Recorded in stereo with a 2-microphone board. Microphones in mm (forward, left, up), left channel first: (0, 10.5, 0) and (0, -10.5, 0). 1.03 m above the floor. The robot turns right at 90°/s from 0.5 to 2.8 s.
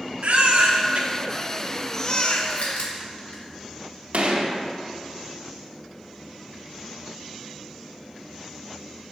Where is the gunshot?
75° right (ahead or behind), 1.2 m.